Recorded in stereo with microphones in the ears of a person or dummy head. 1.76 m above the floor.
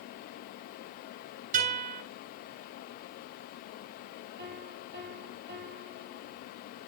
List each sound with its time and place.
1.5 s a guitar: 45° right (ahead or behind), 7 m
4.4 s a piano: 55° right (ahead or behind), 3 m